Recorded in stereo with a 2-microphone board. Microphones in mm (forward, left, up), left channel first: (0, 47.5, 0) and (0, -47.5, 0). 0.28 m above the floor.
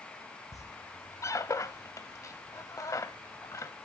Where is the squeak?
35° left (ahead or behind), 0.7 m.